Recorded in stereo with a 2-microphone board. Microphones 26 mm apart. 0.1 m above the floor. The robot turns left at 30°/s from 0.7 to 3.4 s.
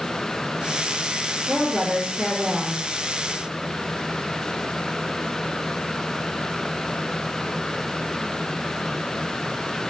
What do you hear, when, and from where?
1.5 s a woman speaking: 35° right, 2 m; by 2.8 s 70° right, 2 m